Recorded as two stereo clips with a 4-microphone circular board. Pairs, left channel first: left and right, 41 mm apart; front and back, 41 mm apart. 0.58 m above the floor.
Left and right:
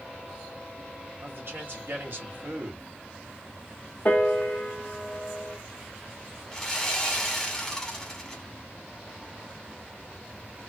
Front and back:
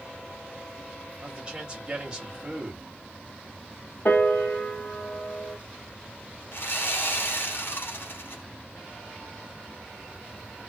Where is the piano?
45° left, 1.0 m.